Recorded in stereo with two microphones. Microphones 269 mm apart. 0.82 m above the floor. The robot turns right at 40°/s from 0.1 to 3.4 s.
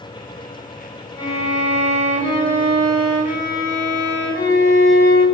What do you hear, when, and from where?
1.2 s a violin: 75° left, 1.9 m; by 5.2 s 165° left, 1.9 m